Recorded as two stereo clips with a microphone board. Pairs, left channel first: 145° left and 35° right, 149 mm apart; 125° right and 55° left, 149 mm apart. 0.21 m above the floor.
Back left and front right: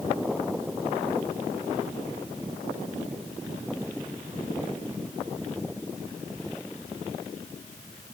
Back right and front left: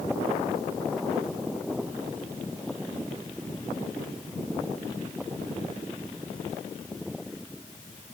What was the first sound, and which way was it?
Only background noise.